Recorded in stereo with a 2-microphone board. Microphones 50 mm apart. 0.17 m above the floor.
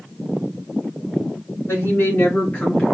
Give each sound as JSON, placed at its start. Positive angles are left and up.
{"t": 1.7, "sound": "a woman speaking", "side_deg": 50, "distance_m": 1.9}